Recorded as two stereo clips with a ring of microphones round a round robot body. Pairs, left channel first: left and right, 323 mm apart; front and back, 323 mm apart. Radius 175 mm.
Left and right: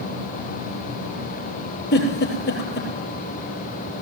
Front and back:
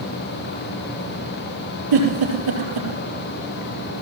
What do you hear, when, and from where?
1.9 s a giggle: 150° left, 5.5 m